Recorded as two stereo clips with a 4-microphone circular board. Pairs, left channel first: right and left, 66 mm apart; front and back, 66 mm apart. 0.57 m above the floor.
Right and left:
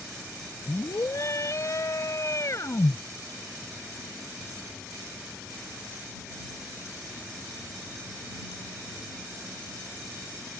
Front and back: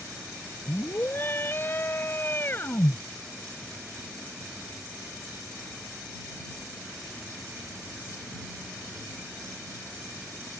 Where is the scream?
50° right.